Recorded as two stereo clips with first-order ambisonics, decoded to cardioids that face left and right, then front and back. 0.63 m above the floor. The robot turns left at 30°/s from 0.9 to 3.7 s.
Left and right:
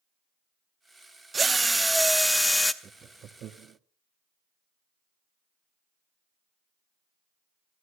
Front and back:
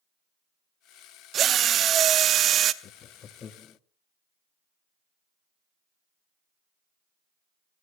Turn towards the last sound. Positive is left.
turn(degrees=-60)